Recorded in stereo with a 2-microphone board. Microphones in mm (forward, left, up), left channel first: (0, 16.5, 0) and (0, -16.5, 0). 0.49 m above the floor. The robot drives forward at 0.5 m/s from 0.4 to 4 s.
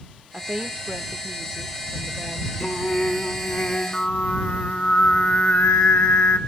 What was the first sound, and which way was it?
A woman speaking, 40° right (ahead or behind).